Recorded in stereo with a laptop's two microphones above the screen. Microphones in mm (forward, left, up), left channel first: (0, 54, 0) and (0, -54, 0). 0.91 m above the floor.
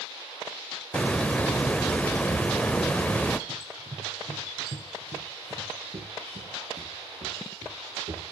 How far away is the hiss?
About 0.7 m.